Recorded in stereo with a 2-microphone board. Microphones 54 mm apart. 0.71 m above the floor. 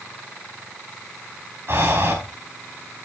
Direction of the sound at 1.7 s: 50° right (ahead or behind).